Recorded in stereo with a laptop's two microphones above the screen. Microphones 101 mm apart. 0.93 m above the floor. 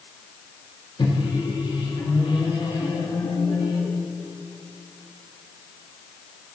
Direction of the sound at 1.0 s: 55° left (ahead or behind).